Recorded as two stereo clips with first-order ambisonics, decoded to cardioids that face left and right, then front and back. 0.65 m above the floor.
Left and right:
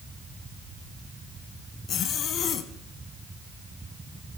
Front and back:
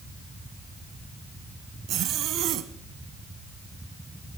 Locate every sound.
1.9 s a zipper: 140° left, 0.9 m